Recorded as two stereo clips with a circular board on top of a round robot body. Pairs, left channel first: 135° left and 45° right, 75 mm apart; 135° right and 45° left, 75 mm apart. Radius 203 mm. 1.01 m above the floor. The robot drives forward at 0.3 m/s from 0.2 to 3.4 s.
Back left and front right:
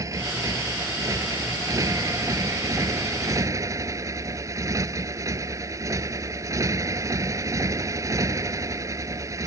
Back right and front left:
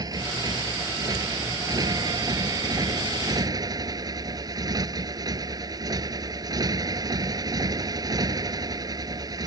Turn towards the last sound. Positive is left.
turn(degrees=5)